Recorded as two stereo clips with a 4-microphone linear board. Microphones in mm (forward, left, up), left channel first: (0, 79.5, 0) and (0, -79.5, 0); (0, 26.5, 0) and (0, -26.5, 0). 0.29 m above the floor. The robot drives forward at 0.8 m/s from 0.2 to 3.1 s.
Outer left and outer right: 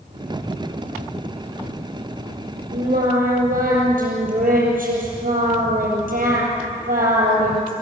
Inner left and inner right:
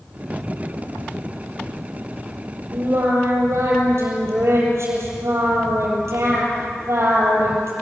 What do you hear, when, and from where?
2.7 s singing: 60° right (ahead or behind), 8 m